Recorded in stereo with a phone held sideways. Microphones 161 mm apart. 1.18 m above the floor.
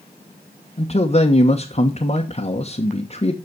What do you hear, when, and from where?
0.8 s a man speaking: 40° left (ahead or behind), 1.2 m